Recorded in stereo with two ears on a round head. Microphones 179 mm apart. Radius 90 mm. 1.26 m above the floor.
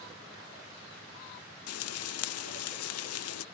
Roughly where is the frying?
Left.